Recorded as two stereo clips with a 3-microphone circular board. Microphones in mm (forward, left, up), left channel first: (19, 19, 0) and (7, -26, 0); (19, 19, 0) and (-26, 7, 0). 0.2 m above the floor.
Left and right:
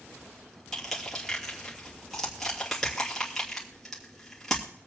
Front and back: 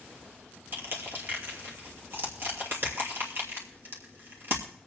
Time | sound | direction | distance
0.7 | crushing | 160° left | 2.5 m